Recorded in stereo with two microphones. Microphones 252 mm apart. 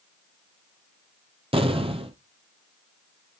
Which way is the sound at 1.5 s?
20° right (ahead or behind).